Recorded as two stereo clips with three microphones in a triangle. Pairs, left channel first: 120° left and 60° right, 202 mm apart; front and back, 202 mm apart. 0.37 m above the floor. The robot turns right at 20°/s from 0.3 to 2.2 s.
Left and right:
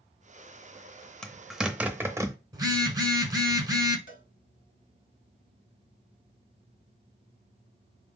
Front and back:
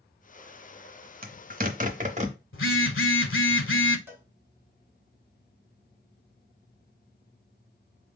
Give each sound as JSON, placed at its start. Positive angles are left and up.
{"t": 1.2, "sound": "a zipper", "azimuth_deg": -155, "distance_m": 0.7}
{"t": 2.5, "sound": "a phone buzzing", "azimuth_deg": 10, "distance_m": 0.7}
{"t": 4.1, "sound": "a cowbell", "azimuth_deg": 100, "distance_m": 0.8}